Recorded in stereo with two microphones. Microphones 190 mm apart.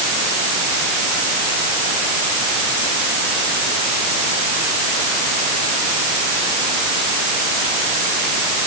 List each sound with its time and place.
Only background noise.